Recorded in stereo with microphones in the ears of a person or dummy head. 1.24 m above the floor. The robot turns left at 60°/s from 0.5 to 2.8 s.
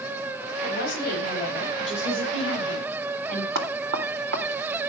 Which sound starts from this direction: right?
Knocking, at 3.5 s.